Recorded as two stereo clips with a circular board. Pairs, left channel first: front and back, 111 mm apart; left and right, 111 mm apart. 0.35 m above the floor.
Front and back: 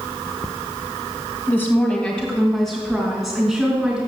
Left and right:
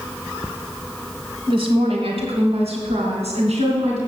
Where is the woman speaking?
65° right, 1.6 m; by 4.0 s 95° right, 3.5 m.